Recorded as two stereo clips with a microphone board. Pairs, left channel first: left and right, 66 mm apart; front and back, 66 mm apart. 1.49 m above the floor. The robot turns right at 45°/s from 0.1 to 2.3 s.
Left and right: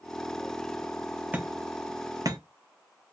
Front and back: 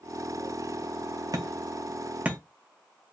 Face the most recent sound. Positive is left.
turn(degrees=-110)